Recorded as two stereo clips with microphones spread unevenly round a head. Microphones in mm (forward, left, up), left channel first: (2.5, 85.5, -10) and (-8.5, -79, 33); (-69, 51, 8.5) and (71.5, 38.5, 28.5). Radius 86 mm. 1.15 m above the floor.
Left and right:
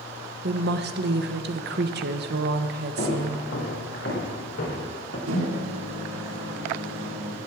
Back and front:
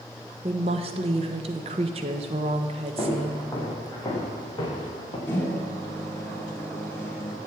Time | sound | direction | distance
0.4 | a woman speaking | 60° right | 1.1 m
3.0 | footsteps | 105° left | 5.5 m
5.3 | a microwave | 105° right | 2.5 m